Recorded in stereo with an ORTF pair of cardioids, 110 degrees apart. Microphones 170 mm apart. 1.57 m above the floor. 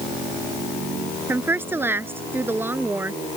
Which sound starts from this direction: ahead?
A woman speaking, at 1.3 s.